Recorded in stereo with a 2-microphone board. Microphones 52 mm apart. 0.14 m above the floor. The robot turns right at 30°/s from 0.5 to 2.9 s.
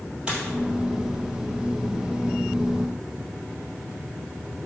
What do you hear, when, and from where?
0.3 s a dropped coin: 20° right (ahead or behind), 1.8 m